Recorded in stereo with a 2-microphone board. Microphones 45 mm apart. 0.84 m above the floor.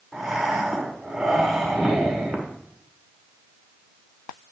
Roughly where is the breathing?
Centre.